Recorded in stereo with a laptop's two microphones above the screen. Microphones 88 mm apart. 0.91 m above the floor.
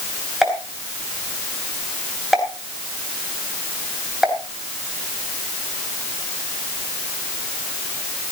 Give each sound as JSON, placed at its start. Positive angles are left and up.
{"t": 0.4, "sound": "a pop", "side_deg": -5, "distance_m": 3.5}